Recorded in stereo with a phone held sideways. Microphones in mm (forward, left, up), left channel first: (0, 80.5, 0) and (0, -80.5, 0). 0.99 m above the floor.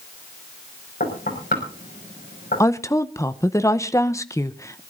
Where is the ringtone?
I don't hear a ringtone.